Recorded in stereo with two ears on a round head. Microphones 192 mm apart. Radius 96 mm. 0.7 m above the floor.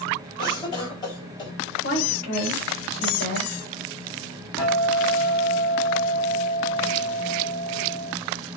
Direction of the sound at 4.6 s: 25° left (ahead or behind).